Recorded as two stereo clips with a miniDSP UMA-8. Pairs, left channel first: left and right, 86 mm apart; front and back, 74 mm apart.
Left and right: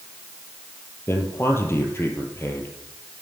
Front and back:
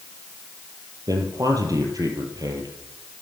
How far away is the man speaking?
About 3.5 m.